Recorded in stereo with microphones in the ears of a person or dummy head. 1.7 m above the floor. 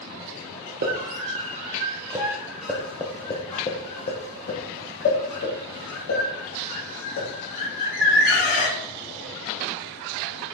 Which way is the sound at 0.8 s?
50° right (ahead or behind).